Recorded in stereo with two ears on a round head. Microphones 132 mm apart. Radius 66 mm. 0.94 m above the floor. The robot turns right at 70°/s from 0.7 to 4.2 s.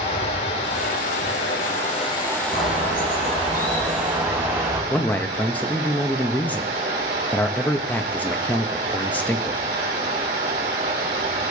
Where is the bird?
80° left, 6.5 m; by 4.8 s 160° right, 6.5 m.